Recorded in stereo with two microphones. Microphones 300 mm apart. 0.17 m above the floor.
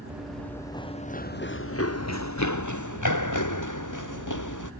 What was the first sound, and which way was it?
Running footsteps, 5° right (ahead or behind).